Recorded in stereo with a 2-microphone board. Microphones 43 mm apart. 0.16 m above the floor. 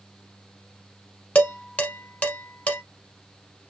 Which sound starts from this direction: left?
Dishes clattering, at 1.4 s.